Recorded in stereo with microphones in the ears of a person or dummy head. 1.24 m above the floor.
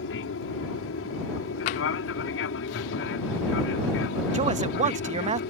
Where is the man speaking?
30° right (ahead or behind).